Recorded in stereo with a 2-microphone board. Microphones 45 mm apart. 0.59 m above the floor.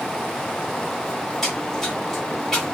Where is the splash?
5° left (ahead or behind), 1.8 m.